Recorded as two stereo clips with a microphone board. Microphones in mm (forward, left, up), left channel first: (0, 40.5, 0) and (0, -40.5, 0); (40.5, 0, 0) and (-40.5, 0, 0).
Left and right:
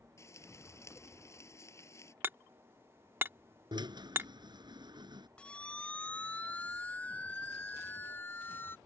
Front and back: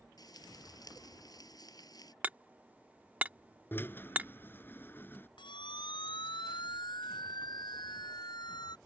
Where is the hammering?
125° right.